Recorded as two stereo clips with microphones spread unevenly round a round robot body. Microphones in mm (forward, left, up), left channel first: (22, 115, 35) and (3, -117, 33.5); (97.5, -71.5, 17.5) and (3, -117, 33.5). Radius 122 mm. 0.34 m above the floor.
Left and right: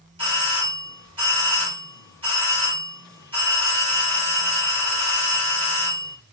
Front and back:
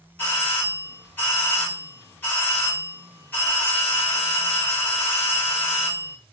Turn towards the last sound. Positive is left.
turn(degrees=-35)